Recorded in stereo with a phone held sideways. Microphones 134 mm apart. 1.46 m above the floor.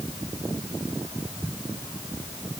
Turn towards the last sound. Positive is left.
No sound to turn to.